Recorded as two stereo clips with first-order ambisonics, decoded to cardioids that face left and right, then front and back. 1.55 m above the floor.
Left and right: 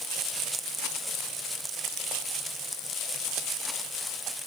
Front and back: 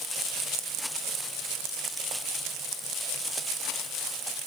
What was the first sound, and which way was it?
Only background noise.